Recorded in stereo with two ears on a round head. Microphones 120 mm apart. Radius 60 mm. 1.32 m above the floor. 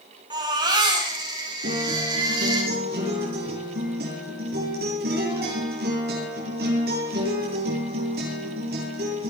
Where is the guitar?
85° right, 9.5 m.